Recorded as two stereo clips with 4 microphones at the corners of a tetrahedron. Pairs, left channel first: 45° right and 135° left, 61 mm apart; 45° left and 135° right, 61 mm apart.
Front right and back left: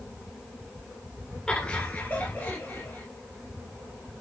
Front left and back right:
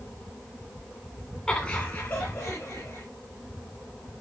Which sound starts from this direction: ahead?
Laughter, at 1.5 s.